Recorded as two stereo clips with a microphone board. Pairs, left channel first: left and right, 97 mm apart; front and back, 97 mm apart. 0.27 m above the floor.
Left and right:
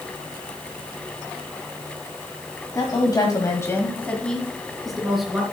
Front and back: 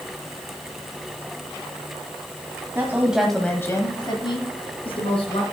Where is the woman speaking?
125° left, 1.7 m; by 5.4 s 5° right, 3.5 m.